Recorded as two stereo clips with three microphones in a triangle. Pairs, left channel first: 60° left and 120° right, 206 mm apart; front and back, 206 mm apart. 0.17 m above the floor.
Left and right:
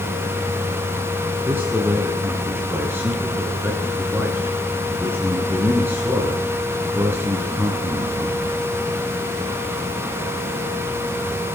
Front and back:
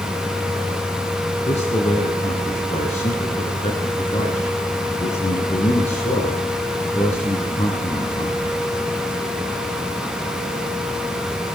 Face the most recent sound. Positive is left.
turn(degrees=-45)